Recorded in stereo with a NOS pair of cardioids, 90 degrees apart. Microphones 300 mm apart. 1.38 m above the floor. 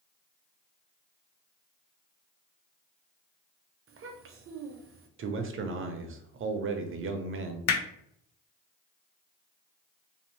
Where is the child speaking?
45° right, 0.7 m.